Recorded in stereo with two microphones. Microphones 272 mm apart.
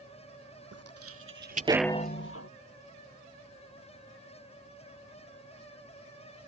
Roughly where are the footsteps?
Right.